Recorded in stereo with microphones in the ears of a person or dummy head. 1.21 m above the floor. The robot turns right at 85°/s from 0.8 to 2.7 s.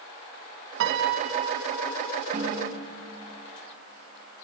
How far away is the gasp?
No gasp in this recording.